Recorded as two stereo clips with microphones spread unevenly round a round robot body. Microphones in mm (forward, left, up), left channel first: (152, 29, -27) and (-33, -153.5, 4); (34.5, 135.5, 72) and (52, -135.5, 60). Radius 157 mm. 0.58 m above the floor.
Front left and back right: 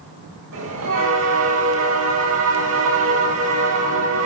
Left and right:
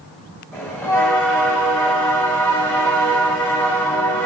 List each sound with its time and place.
0.5 s a bell: straight behind, 8.5 m